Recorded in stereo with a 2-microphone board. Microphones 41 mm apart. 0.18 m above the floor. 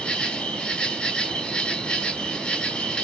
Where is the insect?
20° left (ahead or behind), 0.8 m.